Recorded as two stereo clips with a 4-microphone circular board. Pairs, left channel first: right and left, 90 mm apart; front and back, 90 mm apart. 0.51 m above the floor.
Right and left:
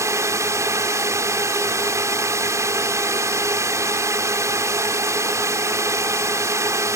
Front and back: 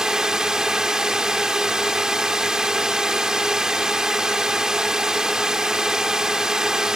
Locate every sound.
0.0 s a drone: 100° left